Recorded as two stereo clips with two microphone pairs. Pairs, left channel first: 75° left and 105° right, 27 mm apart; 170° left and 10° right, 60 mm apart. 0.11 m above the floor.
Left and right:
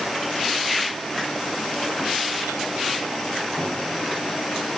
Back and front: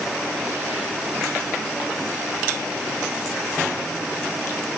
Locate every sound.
Only background noise.